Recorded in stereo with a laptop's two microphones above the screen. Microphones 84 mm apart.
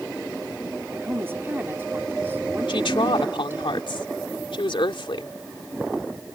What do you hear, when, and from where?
0.9 s a woman speaking: 25° right (ahead or behind)
2.7 s a woman speaking: 80° left